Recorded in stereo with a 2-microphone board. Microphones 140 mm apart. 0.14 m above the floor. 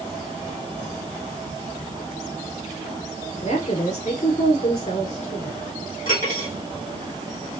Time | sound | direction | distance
3.4 | a woman speaking | 55° left (ahead or behind) | 2.5 m
6.0 | cutlery clinking | 75° left (ahead or behind) | 3.5 m